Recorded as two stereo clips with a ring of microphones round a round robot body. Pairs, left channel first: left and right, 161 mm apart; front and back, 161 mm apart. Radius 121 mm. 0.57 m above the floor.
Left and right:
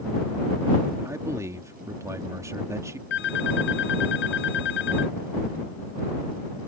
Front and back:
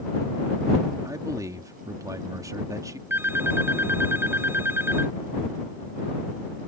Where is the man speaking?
140° right.